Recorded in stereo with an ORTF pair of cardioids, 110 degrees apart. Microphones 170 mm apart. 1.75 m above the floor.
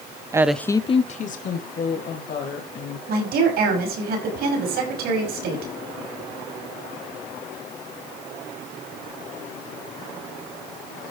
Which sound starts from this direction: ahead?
A woman speaking, at 0.3 s.